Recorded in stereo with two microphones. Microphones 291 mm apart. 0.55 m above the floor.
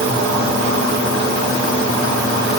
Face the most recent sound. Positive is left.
No sound to turn to.